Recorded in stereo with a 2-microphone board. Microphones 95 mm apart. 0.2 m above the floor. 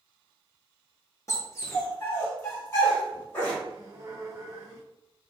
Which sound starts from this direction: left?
A dog barking, at 1.3 s.